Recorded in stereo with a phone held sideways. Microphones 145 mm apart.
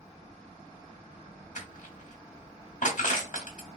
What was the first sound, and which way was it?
Crushing, 60° left (ahead or behind).